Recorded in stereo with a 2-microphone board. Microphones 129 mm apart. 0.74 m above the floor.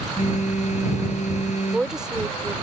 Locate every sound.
0.2 s a phone buzzing: 65° left (ahead or behind)
1.6 s a woman speaking: 5° right (ahead or behind)